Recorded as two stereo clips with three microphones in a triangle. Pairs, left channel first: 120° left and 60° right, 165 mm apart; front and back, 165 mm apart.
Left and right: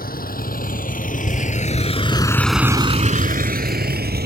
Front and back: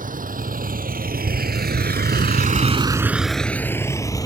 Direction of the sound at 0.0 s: 145° left.